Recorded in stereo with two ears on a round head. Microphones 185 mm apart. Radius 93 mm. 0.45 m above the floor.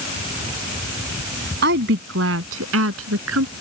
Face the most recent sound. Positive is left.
turn(degrees=-75)  # may be behind; listen again after turning